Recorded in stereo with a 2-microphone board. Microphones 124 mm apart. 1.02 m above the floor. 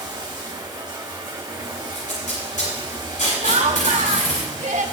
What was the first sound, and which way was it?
Running water, 30° right (ahead or behind).